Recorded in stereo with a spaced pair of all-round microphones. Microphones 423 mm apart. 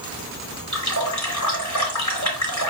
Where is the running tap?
40° left (ahead or behind), 1.9 m.